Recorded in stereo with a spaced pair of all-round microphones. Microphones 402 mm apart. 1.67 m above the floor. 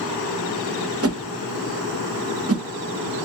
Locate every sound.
1.0 s a whoosh: 35° right (ahead or behind), 0.6 m